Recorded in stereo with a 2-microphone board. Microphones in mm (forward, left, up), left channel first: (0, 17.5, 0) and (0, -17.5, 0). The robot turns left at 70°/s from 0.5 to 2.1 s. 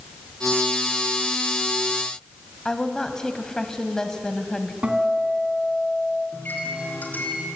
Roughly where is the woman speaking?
Left.